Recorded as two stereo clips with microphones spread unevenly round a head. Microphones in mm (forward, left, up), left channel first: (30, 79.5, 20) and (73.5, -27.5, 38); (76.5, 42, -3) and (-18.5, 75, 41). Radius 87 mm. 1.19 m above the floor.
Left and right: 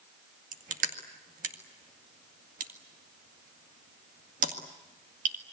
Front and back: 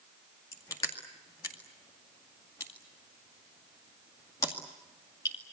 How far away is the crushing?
About 2 m.